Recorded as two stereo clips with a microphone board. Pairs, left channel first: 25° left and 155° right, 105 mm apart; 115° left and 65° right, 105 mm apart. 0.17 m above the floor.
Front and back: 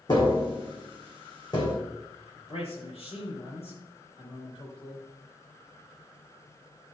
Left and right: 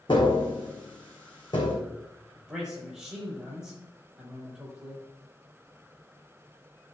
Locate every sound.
0.1 s tapping: 70° left, 3 m
2.4 s a man speaking: 15° left, 5.5 m